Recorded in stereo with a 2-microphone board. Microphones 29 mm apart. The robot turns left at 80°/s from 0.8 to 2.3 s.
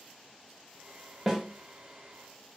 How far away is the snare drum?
About 1.1 m.